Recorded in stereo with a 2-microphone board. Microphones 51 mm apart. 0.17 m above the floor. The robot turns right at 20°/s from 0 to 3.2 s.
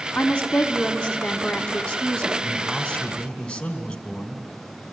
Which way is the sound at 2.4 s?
20° left (ahead or behind).